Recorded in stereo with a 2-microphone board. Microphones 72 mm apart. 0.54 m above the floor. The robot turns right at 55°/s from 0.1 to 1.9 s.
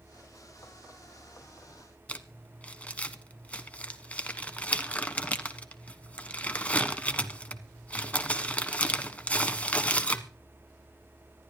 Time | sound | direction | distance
2.1 | crumpling | 20° left (ahead or behind) | 1.4 m